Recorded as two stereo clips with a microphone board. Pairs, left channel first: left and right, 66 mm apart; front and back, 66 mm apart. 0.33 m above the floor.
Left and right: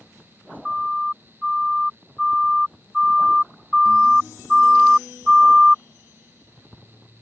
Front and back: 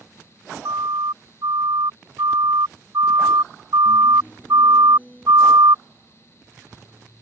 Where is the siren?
Straight behind; by 5.8 s 175° right.